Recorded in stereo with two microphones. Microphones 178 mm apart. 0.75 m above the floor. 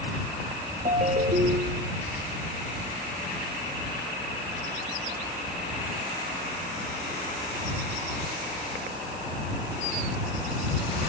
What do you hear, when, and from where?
0.8 s a ringtone: 40° right (ahead or behind)